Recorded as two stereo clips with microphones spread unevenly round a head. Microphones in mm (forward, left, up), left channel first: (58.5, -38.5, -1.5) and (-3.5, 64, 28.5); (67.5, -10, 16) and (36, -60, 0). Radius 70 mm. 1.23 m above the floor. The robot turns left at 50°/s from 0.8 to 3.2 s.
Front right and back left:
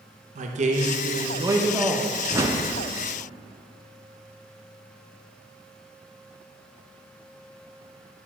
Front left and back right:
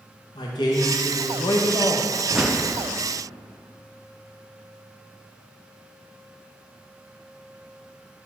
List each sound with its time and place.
0.3 s a man speaking: 95° left, 1.0 m; by 2.1 s 30° left, 1.0 m
2.3 s a whoosh: 160° right, 0.6 m; by 2.7 s 175° left, 0.6 m